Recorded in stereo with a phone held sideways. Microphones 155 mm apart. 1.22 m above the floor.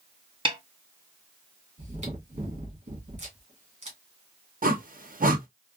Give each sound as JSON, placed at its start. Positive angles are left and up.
{"t": 0.5, "sound": "a snare drum", "side_deg": -35, "distance_m": 0.7}
{"t": 1.8, "sound": "chewing", "side_deg": -45, "distance_m": 1.5}
{"t": 4.6, "sound": "a whoosh", "side_deg": -65, "distance_m": 0.7}